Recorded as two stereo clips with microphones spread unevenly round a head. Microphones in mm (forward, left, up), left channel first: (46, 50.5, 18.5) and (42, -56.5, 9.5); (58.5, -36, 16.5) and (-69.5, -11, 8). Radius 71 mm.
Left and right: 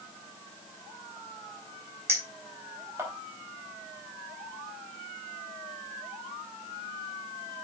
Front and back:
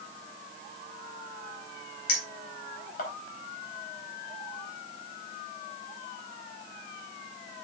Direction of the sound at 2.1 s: 25° right.